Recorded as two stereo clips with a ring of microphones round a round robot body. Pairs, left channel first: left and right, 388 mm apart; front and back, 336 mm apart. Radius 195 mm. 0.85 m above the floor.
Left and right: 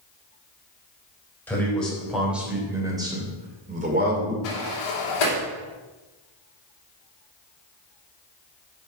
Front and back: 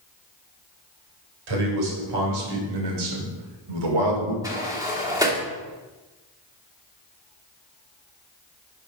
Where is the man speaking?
175° left, 3.5 m; by 4.3 s 155° right, 2.5 m.